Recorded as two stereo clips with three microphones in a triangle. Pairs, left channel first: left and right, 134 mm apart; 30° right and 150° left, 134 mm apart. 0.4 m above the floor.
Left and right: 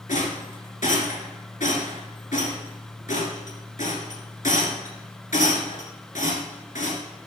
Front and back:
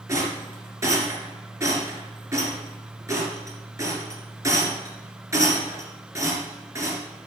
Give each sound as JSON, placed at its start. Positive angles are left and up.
{"t": 0.1, "sound": "a rattle", "azimuth_deg": 85, "distance_m": 2.0}